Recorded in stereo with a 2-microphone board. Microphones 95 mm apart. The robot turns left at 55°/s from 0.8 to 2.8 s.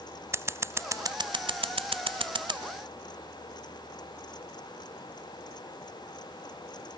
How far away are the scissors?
About 0.6 m.